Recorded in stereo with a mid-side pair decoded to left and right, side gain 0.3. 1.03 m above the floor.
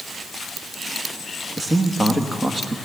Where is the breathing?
I don't hear breathing.